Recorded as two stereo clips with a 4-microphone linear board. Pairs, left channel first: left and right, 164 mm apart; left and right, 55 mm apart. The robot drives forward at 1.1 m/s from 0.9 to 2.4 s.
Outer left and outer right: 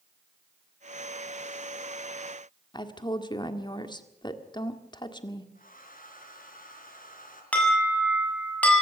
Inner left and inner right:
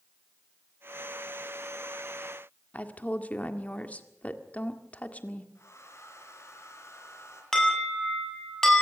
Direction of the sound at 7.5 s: 10° left (ahead or behind).